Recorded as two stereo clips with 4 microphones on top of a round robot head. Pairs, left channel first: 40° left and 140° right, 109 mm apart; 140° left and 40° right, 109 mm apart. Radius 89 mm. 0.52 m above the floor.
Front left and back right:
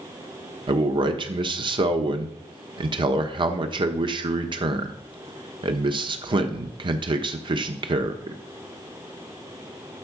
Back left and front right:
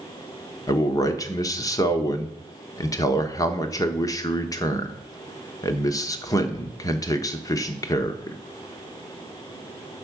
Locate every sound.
0.7 s a man speaking: 170° right, 1.2 m